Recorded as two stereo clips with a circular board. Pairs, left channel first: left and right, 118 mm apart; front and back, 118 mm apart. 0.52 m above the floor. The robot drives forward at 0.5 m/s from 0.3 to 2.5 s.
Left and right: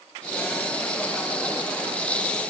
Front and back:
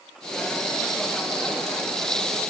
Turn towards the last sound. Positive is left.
No sound to turn to.